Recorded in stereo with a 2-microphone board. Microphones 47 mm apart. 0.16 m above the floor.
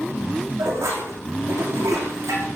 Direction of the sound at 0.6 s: 80° right.